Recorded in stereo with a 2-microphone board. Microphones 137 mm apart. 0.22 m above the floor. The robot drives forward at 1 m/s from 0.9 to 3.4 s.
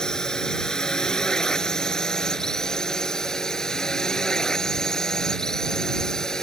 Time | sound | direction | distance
0.0 | a drone | 5° left (ahead or behind) | ?